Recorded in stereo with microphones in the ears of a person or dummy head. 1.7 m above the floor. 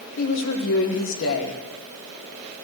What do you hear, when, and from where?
0.2 s a woman speaking: 70° left (ahead or behind), 1.6 m